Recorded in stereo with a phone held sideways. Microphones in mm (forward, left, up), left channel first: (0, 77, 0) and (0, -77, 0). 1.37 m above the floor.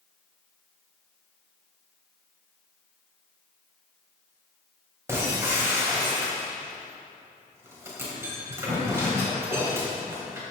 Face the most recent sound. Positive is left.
turn(degrees=-20)  # may be behind; listen again after turning